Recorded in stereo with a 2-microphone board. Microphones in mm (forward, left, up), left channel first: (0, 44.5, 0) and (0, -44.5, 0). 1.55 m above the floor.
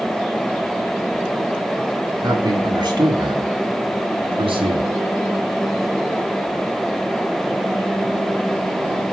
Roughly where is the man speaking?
Right.